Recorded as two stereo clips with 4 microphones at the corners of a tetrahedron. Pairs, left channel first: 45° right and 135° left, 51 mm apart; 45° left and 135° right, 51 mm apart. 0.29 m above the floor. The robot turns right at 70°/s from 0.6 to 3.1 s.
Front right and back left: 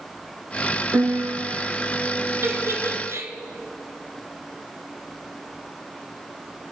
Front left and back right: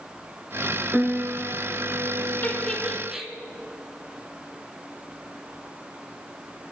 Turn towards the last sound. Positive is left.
turn(degrees=150)